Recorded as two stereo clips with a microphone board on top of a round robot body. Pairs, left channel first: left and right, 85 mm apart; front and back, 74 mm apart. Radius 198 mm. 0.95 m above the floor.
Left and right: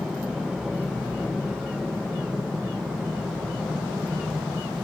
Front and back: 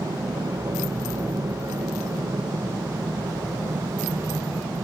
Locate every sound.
0.0 s an aircraft: 175° right